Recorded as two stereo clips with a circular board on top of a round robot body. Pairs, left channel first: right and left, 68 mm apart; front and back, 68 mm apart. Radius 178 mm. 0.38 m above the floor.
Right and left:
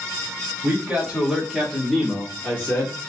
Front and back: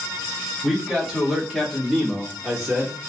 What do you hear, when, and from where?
0.6 s a man speaking: 90° left, 1.5 m; by 3.1 s 110° right, 1.6 m